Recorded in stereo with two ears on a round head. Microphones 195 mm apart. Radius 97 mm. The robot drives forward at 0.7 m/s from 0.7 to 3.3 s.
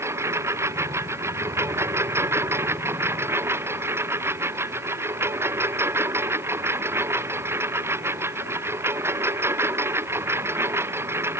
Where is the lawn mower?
15° right (ahead or behind); by 11.4 s 10° right (ahead or behind).